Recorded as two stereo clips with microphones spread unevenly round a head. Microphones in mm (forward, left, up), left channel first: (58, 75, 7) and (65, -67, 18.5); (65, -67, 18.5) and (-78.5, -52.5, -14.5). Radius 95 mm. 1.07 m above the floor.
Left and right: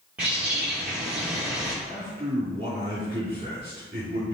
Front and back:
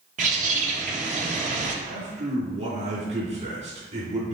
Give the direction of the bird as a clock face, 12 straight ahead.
6 o'clock.